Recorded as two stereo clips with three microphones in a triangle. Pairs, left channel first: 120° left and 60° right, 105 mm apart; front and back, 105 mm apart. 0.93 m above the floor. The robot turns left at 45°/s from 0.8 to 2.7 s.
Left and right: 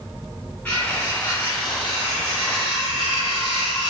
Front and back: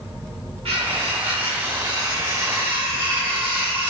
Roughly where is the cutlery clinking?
Behind.